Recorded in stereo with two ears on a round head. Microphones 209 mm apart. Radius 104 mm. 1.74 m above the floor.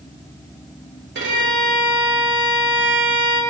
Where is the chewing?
No chewing in this recording.